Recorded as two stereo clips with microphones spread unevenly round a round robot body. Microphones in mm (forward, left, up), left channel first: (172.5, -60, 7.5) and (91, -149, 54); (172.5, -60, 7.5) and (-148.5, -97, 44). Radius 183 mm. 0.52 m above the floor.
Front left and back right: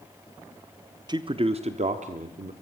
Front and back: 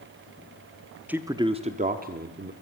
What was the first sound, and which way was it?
A man speaking, 80° right.